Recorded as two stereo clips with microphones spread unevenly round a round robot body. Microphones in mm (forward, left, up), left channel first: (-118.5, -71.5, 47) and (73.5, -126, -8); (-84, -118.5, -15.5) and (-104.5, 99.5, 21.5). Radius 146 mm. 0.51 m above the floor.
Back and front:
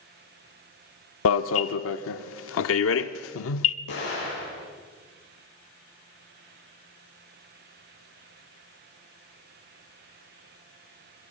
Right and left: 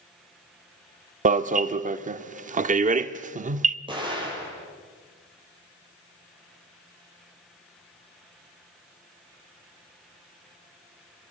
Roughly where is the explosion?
Behind.